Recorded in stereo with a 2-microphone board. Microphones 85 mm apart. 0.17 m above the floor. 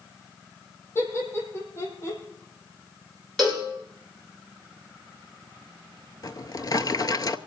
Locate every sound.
0.9 s laughter: 25° left (ahead or behind), 6.5 m; by 2.2 s 30° left (ahead or behind), 7.5 m
3.4 s a cowbell: centre (ahead or behind), 7.5 m
6.2 s a drawer: 50° left (ahead or behind), 0.7 m